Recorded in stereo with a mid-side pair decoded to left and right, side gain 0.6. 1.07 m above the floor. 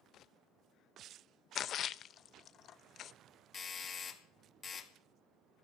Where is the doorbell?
35° left, 2.5 m.